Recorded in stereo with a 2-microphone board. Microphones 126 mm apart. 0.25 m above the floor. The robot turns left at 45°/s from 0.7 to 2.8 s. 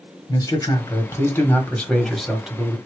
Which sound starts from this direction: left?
A man speaking, at 0.3 s.